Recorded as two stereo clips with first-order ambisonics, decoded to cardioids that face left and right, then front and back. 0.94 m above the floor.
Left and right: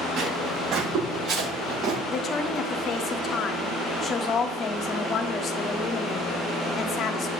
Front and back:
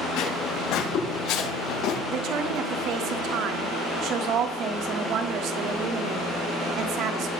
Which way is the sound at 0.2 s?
40° right.